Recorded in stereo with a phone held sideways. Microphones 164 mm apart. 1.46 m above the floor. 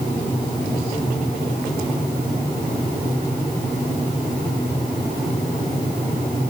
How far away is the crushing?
No crushing in this recording.